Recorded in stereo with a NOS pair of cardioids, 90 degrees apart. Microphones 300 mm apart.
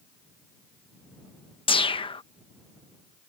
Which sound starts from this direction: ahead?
A whoosh, at 1.7 s.